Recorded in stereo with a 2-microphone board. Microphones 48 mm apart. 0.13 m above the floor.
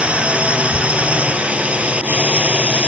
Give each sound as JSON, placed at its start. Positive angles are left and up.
{"t": 0.0, "sound": "a drone", "side_deg": -25}